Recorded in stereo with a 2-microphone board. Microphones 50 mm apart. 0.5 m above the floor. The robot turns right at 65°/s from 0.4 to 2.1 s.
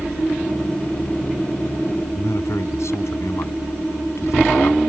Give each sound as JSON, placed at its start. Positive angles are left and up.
{"t": 2.1, "sound": "a man speaking", "side_deg": 75}